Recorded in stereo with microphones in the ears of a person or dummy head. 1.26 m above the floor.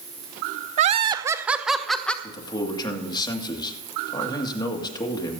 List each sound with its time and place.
0.8 s laughter: 40° right (ahead or behind), 0.5 m; by 2.1 s 5° left (ahead or behind), 1.1 m
2.2 s a man speaking: 25° left (ahead or behind), 1.9 m